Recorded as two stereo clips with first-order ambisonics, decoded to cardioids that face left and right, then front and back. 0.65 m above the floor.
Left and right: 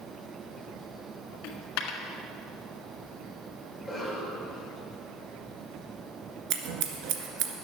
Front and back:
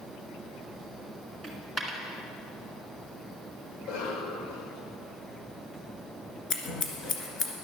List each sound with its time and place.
1.4 s a dropped coin: 90° left, 1.6 m
3.7 s a cough: 10° left, 3 m
6.5 s scissors: 60° right, 1.6 m